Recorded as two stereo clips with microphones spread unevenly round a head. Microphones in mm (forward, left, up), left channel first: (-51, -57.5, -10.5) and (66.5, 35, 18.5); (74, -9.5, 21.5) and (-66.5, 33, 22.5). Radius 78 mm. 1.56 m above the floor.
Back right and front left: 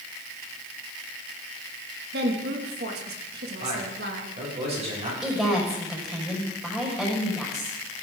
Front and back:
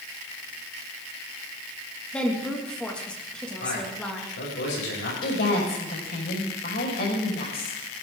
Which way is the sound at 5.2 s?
50° right.